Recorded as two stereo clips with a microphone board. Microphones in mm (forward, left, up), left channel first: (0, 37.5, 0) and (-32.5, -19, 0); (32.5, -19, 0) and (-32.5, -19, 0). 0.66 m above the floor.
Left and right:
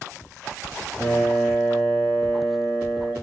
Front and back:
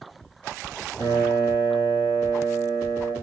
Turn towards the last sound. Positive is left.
turn(degrees=-10)